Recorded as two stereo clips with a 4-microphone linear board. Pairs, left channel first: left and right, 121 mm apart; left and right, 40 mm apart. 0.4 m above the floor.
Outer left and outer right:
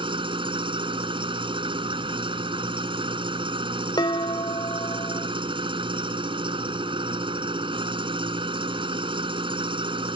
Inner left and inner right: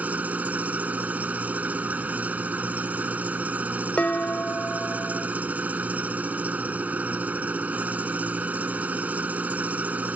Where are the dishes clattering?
35° left (ahead or behind).